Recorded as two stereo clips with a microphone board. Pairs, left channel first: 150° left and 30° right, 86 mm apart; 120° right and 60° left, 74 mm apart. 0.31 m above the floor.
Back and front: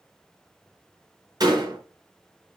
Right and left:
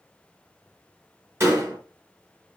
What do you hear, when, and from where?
1.4 s a door slam: 10° left, 3 m